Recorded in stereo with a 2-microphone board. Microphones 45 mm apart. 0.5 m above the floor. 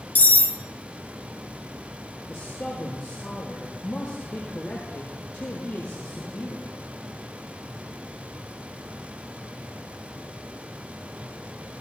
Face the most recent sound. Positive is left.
turn(degrees=30)  # may be behind; listen again after turning